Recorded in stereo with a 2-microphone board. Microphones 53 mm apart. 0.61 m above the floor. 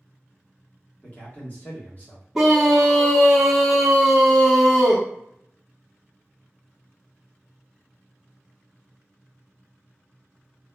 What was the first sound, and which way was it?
A man speaking, 30° left (ahead or behind).